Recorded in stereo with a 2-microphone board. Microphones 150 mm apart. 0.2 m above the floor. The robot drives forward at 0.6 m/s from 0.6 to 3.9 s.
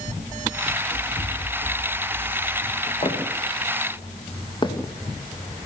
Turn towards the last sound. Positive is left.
turn(degrees=20)  # may be behind; listen again after turning